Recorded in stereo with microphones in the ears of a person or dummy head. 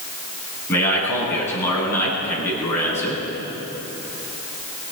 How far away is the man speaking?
About 10 m.